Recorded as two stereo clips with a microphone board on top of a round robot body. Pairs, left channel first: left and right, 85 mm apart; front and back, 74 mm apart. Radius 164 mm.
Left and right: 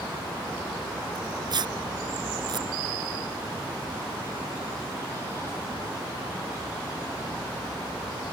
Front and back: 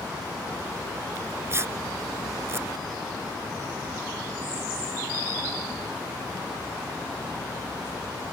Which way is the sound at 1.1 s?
125° right.